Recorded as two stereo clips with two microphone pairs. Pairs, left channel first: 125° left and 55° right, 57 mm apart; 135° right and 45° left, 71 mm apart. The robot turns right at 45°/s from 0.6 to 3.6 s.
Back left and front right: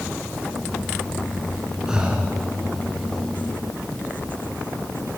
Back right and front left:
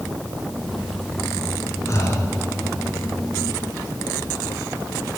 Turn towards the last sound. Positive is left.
turn(degrees=-50)